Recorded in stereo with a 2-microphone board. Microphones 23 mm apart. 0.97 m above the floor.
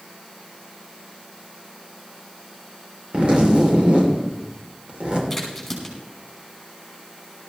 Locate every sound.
3.1 s a zipper: 50° right (ahead or behind), 2.5 m
5.3 s a crack: centre (ahead or behind), 5 m